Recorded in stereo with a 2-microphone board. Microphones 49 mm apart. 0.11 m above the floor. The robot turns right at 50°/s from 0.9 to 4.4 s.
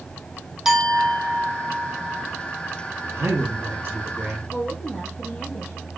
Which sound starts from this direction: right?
A man speaking, at 3.1 s.